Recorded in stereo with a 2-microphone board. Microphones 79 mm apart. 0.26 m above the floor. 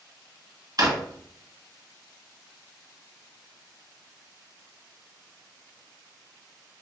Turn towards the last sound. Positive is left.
turn(degrees=-55)  # may be behind; listen again after turning